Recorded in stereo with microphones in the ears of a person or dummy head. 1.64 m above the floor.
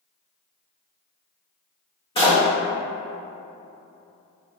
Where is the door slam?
20° left (ahead or behind), 0.7 m.